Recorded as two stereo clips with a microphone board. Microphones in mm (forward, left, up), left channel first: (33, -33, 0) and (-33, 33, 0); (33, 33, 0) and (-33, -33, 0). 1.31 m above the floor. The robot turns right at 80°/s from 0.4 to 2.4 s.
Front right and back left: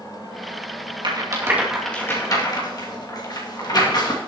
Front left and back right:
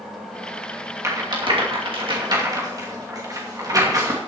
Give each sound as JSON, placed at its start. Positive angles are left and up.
{"t": 1.0, "sound": "a rattle", "azimuth_deg": 165, "distance_m": 2.5}